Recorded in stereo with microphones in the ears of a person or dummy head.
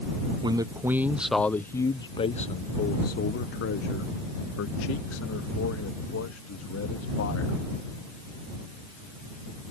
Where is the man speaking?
25° right (ahead or behind); by 7.6 s 85° left.